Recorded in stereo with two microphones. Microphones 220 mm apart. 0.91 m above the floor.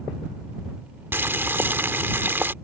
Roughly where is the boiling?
Centre.